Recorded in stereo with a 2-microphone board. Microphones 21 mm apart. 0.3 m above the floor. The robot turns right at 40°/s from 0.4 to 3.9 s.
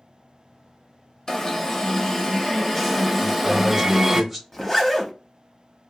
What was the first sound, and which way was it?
An alarm, 25° left (ahead or behind).